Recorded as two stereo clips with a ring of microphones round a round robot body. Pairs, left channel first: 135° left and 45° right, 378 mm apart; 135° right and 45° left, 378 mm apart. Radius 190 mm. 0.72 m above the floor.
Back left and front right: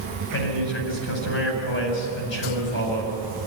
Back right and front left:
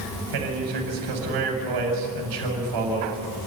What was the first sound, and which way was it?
A man speaking, 75° left.